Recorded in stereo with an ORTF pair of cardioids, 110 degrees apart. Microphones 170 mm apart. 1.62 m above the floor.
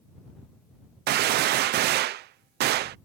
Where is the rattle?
No rattle in this recording.